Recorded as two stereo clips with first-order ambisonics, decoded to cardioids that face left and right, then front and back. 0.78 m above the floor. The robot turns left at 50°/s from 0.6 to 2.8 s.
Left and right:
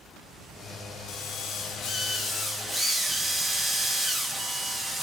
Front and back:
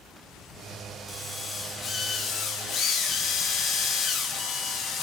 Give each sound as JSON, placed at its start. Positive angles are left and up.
{"t": 1.1, "sound": "a drill", "azimuth_deg": 95, "distance_m": 1.4}